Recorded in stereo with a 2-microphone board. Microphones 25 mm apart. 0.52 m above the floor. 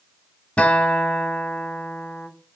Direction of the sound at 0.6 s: 70° left (ahead or behind).